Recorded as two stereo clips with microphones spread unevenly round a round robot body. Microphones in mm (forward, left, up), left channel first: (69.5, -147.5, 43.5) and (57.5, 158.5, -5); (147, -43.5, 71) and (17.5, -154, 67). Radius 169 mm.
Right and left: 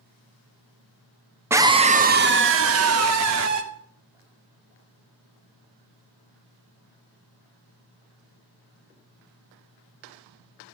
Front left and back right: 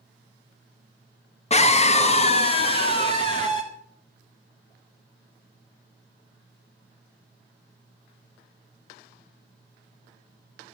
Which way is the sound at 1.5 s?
30° left.